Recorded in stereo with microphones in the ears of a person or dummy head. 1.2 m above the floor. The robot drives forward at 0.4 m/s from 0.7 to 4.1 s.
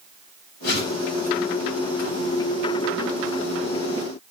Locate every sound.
0.6 s a whoosh: 75° left (ahead or behind), 8.5 m